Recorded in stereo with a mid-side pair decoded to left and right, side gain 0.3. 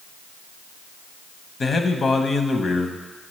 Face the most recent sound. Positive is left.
turn(degrees=55)